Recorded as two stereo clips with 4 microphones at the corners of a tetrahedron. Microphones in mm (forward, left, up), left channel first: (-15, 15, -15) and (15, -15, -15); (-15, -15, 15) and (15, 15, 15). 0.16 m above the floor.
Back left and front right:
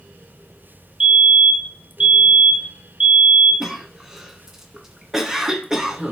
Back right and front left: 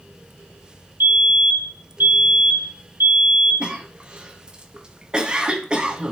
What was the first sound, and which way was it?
A fire alarm, 10° left.